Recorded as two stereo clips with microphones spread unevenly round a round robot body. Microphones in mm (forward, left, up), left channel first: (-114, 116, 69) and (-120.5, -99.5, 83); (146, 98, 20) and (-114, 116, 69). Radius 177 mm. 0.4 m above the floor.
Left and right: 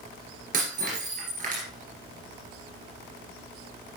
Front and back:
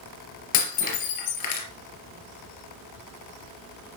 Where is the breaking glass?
25° right, 3 m.